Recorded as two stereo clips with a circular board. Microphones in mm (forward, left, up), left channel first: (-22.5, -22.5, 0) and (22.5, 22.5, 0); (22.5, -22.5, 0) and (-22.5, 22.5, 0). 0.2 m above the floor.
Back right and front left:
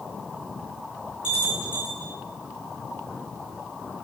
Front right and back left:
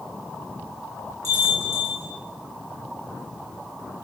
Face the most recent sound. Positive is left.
turn(degrees=115)